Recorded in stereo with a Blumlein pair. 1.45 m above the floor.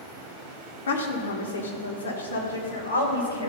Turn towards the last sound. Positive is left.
turn(degrees=75)